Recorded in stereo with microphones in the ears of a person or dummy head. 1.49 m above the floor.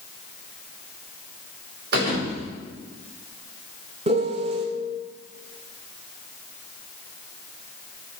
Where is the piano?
25° right (ahead or behind), 0.6 m.